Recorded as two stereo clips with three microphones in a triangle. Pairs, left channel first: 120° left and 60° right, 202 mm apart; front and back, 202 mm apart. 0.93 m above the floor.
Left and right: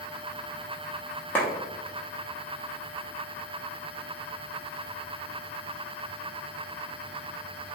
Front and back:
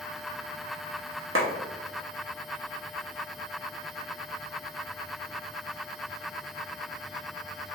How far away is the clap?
About 0.7 m.